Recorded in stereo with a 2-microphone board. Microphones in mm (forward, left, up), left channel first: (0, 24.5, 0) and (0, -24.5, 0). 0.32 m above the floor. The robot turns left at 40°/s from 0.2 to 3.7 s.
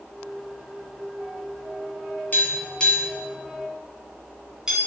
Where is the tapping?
35° left (ahead or behind), 3 m; by 4.8 s 20° right (ahead or behind), 3 m.